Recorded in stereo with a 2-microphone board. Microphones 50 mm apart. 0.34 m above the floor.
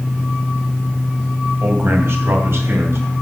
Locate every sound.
1.6 s a man speaking: 50° right (ahead or behind), 1.7 m; by 3.1 s 60° right (ahead or behind), 3 m